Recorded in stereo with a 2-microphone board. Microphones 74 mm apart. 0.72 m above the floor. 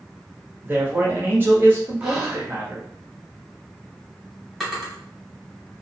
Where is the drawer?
Centre (ahead or behind), 1.7 m.